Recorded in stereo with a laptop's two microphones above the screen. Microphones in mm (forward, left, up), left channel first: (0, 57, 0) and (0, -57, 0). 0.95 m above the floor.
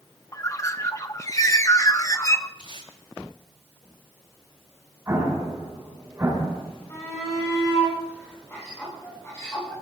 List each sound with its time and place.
0.3 s a bird: 30° left (ahead or behind), 0.5 m
2.6 s tape being pulled: 55° left (ahead or behind), 9 m
5.1 s an explosion: 25° right (ahead or behind), 6.5 m
6.9 s a shout: 25° left (ahead or behind), 9.5 m